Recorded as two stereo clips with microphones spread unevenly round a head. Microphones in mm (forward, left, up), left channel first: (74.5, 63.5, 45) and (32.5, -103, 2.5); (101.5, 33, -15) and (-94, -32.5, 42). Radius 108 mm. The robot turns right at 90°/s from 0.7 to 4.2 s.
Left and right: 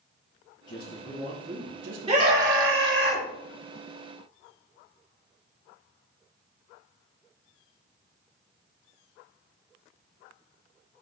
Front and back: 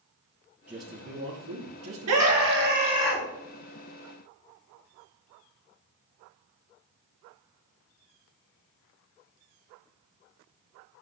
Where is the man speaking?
115° left, 4 m; by 2.9 s 45° right, 4 m.